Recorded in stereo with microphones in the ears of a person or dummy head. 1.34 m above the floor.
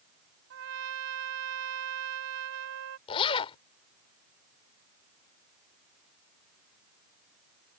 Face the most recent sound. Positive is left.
turn(degrees=30)  # may be behind; listen again after turning